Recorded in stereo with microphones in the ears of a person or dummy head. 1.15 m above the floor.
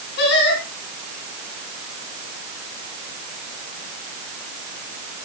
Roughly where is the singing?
Left.